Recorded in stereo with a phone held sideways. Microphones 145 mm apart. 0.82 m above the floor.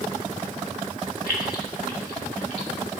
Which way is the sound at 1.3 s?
80° left.